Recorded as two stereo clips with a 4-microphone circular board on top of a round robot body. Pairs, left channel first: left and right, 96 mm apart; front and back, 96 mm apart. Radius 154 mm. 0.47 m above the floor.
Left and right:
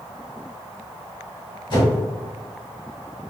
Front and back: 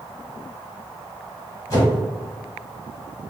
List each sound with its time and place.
1.7 s a whoosh: 50° left, 1.7 m